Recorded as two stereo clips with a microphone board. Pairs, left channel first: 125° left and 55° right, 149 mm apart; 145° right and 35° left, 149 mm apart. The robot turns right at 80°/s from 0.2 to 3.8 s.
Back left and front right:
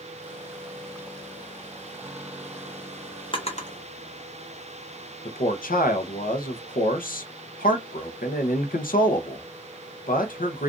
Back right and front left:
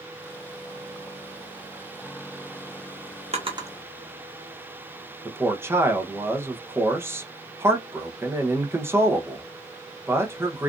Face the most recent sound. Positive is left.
turn(degrees=110)